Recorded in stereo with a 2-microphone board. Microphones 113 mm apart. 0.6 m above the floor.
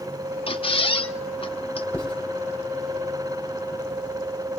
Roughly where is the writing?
Centre.